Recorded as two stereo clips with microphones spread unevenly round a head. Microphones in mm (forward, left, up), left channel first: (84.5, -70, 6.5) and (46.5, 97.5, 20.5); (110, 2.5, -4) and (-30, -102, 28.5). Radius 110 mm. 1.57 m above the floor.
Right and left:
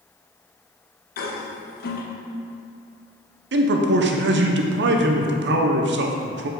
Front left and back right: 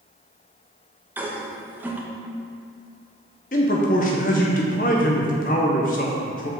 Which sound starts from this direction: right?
A toilet flushing, at 1.2 s.